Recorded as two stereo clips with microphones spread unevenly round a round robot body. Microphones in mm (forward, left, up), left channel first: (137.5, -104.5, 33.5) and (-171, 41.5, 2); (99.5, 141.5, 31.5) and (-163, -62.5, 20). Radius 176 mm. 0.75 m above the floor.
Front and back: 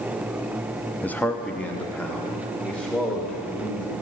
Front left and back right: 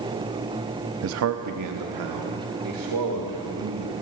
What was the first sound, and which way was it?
A man speaking, 115° right.